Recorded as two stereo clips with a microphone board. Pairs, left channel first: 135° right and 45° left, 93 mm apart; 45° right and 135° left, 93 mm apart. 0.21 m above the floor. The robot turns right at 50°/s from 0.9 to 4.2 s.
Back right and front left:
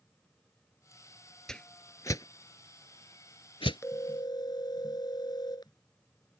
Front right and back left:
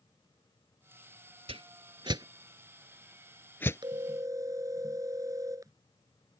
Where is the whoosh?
140° left; by 3.8 s 105° right.